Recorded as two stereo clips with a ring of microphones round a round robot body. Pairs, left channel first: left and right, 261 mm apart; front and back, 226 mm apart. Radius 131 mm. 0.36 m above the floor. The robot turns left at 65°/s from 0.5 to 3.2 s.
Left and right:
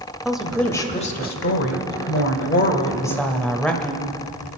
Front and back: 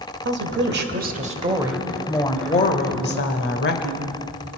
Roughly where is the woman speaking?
Behind.